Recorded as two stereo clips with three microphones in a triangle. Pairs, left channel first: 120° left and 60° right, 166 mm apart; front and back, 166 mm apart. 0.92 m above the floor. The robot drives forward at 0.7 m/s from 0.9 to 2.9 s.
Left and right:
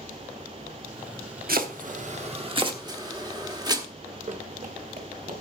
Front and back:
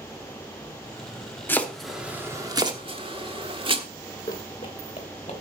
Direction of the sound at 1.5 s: 75° right.